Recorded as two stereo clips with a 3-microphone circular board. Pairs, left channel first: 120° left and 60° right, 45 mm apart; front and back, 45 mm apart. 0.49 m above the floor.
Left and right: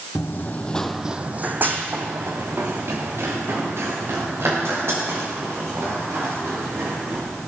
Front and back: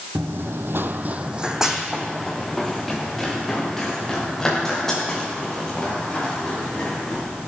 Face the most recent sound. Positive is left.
turn(degrees=-80)